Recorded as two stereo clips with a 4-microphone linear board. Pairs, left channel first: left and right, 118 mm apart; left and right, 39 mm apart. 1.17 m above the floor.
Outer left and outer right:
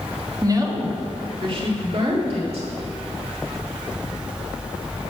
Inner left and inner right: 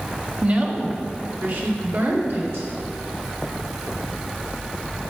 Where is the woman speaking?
30° right (ahead or behind), 1.6 m; by 2.7 s 65° right (ahead or behind), 3 m.